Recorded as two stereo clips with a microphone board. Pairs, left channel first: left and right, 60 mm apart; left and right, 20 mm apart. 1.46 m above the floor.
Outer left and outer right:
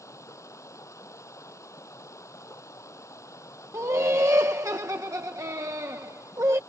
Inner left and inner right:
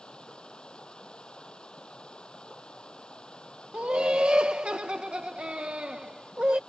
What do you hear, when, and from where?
0.0 s running water: 60° left (ahead or behind)
3.7 s laughter: 65° right (ahead or behind)